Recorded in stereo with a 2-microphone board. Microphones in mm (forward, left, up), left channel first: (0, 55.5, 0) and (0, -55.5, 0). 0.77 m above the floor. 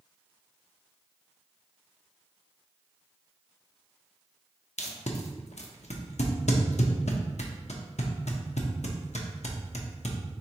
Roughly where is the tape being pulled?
Left.